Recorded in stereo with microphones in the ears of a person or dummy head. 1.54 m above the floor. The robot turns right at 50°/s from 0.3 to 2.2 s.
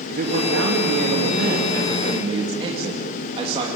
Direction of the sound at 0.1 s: 125° right.